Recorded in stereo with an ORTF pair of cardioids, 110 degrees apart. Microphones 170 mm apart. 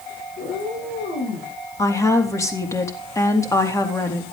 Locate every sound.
0.4 s a cat meowing: 70° left, 8 m; by 1.5 s 80° left, 8 m
1.8 s a woman speaking: 15° left, 3 m